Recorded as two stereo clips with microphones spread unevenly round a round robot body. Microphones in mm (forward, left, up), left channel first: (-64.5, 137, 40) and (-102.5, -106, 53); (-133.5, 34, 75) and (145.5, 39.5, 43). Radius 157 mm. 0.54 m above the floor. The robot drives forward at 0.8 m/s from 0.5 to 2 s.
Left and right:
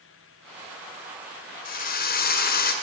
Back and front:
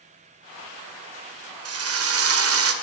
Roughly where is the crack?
No crack in this recording.